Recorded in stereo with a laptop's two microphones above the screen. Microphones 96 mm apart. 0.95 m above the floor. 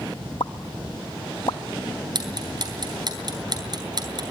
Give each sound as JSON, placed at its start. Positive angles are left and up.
{"t": 0.4, "sound": "a pop", "side_deg": 60, "distance_m": 1.3}
{"t": 2.1, "sound": "ticking", "side_deg": -50, "distance_m": 3.5}